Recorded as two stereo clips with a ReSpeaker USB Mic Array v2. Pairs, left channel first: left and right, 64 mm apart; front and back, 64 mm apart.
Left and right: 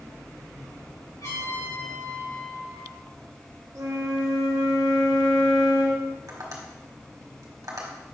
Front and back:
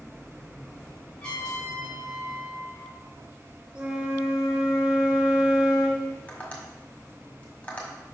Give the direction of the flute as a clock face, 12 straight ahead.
4 o'clock.